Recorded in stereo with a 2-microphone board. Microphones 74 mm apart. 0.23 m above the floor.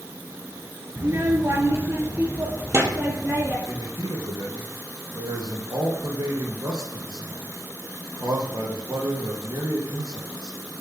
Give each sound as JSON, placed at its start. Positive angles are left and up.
{"t": 1.0, "sound": "a child speaking", "side_deg": -40, "distance_m": 1.8}
{"t": 3.7, "sound": "a man speaking", "side_deg": -65, "distance_m": 4.5}